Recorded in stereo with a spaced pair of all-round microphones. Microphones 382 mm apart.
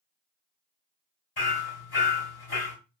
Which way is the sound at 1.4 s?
80° left.